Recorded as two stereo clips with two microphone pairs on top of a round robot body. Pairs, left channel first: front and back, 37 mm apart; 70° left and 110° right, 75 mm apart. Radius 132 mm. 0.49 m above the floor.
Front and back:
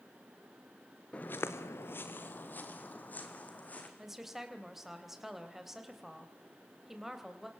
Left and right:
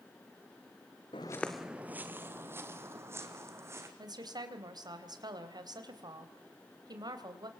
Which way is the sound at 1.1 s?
65° left.